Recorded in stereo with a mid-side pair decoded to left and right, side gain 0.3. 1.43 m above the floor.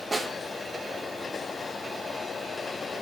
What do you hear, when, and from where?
0.1 s a snare drum: 35° right, 2 m